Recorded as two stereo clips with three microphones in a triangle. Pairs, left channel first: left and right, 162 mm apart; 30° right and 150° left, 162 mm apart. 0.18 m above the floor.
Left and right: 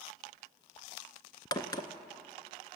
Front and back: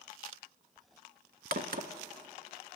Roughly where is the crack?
Behind left.